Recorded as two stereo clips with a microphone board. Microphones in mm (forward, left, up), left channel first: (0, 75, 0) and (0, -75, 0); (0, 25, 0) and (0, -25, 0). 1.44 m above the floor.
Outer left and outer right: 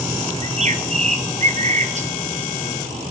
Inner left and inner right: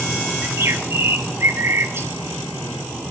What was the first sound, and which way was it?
A bird, 50° right (ahead or behind).